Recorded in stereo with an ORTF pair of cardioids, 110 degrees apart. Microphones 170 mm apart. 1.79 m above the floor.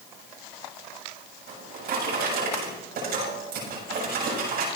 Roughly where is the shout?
I don't hear a shout.